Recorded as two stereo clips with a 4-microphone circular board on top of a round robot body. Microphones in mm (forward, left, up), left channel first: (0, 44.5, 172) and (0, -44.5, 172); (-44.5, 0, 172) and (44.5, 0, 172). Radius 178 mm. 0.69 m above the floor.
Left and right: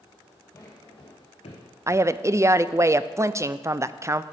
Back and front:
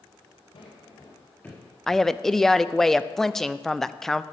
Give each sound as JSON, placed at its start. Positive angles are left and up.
{"t": 0.5, "sound": "footsteps", "azimuth_deg": 155, "distance_m": 1.5}
{"t": 1.9, "sound": "a woman speaking", "azimuth_deg": -100, "distance_m": 0.5}